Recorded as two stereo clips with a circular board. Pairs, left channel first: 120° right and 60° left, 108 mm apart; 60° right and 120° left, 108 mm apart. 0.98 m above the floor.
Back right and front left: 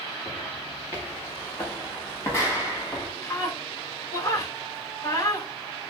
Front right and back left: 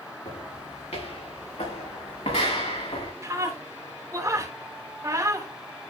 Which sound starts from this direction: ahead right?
Footsteps, at 0.2 s.